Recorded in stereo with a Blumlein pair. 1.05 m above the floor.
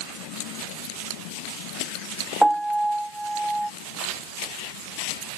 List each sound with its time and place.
2.4 s a piano: 5° right